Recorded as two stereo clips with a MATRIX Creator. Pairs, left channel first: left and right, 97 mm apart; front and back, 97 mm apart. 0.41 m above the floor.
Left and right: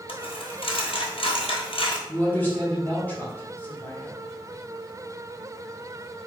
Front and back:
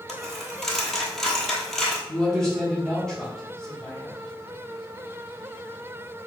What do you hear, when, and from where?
0.1 s a dropped coin: 85° left, 0.9 m
2.1 s a man speaking: 75° left, 1.5 m